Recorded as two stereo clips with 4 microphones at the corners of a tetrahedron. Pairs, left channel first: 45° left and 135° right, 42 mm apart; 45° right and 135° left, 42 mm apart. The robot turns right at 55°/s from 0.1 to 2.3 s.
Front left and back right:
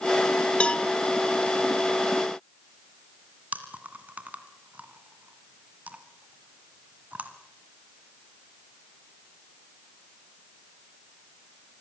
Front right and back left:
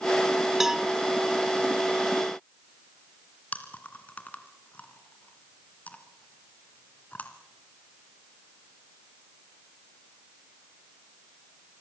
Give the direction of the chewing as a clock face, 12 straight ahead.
3 o'clock.